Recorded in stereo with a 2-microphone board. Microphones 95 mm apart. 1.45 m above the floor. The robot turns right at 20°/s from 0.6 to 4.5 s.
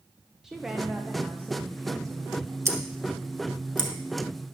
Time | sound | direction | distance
0.4 | a woman speaking | 175° right | 0.9 m
2.6 | scissors | 30° right (ahead or behind) | 1.8 m